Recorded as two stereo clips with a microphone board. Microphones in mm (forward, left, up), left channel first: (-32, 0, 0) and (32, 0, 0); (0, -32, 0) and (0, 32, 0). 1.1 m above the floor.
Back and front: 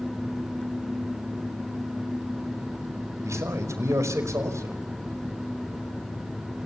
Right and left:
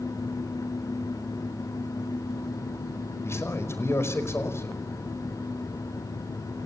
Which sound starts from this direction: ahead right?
A man speaking, at 3.2 s.